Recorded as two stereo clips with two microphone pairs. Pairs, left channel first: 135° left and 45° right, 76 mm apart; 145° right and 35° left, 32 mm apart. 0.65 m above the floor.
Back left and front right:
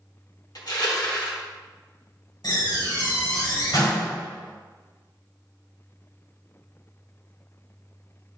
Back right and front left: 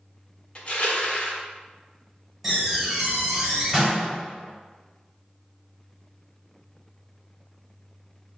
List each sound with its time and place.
0.6 s crushing: 160° left, 1.3 m
2.4 s a door slam: 120° left, 2.5 m